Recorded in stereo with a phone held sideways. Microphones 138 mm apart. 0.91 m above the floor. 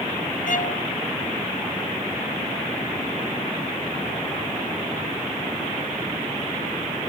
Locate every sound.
0.5 s a violin: 70° left (ahead or behind)